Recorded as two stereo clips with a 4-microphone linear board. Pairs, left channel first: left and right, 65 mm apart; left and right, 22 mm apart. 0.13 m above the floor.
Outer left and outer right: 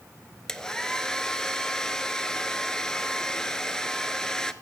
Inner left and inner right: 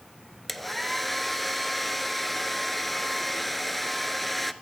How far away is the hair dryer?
About 0.5 m.